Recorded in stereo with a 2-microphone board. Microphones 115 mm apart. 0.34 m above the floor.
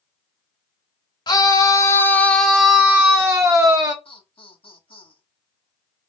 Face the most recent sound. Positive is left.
turn(degrees=55)  # may be behind; listen again after turning